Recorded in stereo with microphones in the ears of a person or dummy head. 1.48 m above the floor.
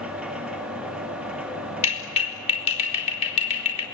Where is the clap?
35° left (ahead or behind), 4 m.